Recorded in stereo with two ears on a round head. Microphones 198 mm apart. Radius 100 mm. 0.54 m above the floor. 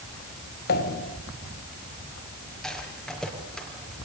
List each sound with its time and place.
0.7 s a pop: 45° left (ahead or behind), 1.9 m
2.6 s a rattle: centre (ahead or behind), 5 m